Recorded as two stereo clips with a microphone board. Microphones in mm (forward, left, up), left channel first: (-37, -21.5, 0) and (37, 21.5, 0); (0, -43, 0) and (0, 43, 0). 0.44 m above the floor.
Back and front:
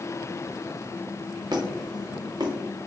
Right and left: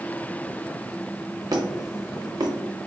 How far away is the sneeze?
No sneeze in this recording.